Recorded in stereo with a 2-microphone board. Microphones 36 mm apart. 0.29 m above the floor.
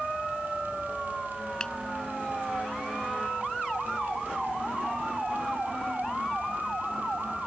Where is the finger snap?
25° left (ahead or behind).